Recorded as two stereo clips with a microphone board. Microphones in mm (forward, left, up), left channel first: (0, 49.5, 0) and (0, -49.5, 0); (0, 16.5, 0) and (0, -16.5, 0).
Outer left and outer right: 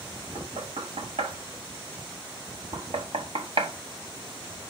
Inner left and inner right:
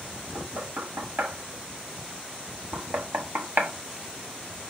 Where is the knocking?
70° right (ahead or behind), 0.8 m.